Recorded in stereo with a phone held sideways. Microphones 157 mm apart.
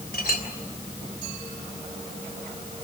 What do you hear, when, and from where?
0.1 s a clink: 75° left (ahead or behind), 3 m